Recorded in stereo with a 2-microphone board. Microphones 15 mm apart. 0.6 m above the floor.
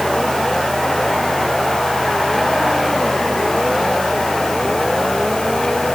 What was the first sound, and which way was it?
Only background noise.